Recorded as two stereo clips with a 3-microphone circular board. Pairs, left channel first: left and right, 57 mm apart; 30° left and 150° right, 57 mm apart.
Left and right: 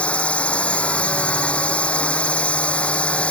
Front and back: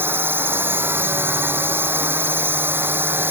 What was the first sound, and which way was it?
A drone, 160° left.